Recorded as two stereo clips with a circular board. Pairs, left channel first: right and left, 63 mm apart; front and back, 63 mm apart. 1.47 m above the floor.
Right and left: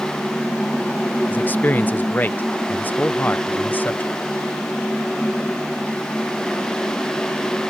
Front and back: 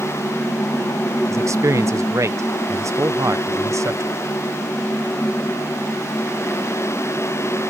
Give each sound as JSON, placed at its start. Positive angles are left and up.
{"t": 1.3, "sound": "a man speaking", "azimuth_deg": -150}